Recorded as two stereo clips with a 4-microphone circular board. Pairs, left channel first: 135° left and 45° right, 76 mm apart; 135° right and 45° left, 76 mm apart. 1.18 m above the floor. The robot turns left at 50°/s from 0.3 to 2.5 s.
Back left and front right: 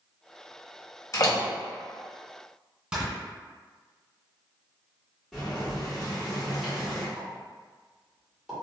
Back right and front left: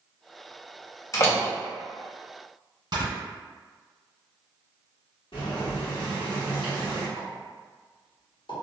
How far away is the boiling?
About 1.5 m.